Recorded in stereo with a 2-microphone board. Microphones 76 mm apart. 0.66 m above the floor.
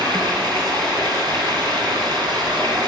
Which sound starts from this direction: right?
Running water, at 0.0 s.